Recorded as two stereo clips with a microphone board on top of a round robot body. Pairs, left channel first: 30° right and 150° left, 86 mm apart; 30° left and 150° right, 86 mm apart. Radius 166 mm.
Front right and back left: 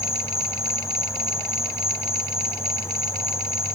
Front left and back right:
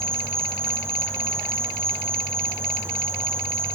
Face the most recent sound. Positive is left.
turn(degrees=-90)